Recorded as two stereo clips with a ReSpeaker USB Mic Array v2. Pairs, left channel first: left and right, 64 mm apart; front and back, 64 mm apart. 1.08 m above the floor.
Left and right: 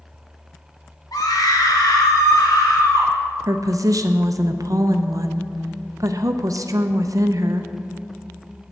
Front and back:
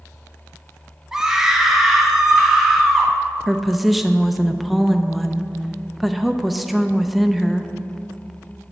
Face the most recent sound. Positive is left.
turn(degrees=-90)